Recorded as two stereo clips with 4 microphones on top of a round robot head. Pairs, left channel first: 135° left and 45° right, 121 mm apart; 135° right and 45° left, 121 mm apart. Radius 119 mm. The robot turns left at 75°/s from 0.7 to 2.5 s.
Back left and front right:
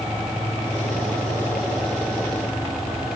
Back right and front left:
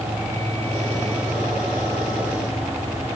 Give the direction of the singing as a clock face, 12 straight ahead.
I don't hear singing.